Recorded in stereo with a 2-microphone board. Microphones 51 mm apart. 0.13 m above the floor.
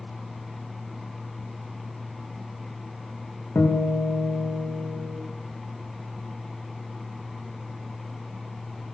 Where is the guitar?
50° left (ahead or behind), 4 m.